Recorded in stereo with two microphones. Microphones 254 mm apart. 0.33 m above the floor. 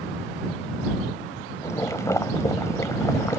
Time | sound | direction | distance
1.6 | boiling | 10° left (ahead or behind) | ?